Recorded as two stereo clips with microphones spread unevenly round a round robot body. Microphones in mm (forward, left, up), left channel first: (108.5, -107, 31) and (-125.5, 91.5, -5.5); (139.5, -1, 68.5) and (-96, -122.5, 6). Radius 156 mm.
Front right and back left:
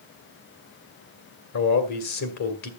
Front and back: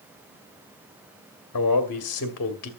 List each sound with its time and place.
1.5 s a man speaking: 5° right, 1.6 m